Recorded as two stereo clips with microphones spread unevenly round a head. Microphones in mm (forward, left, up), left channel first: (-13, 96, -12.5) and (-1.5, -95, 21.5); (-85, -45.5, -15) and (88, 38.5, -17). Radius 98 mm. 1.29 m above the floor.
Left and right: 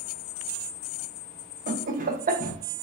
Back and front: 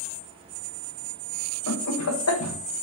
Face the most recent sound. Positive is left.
turn(degrees=-140)